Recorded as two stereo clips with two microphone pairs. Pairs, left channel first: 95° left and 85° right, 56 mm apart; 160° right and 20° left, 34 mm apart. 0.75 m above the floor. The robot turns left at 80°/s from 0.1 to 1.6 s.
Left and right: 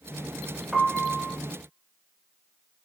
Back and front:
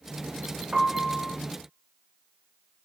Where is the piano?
Straight ahead, 0.6 m; by 1.4 s 50° right, 0.6 m.